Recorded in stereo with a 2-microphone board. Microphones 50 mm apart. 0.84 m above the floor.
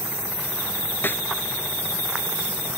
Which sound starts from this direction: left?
A snare drum, at 1.0 s.